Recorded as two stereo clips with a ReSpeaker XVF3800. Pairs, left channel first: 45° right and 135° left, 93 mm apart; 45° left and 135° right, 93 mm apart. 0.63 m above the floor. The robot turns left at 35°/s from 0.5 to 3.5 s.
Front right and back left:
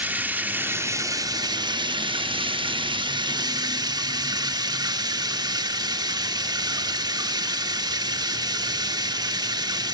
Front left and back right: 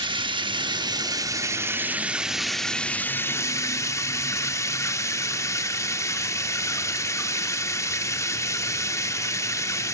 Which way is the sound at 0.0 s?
155° right.